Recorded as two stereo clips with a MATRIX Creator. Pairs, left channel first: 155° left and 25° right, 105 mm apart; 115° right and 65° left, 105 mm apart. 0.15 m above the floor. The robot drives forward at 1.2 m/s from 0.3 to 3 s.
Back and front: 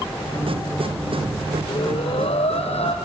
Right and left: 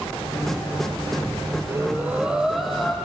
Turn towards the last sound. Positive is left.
turn(degrees=160)